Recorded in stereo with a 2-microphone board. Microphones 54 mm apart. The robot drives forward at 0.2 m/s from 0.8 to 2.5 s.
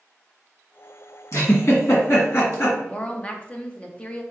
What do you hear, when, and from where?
1.3 s a giggle: 55° left (ahead or behind), 1.8 m; by 2.8 s 50° left (ahead or behind), 2.0 m
2.9 s a woman speaking: 25° left (ahead or behind), 0.7 m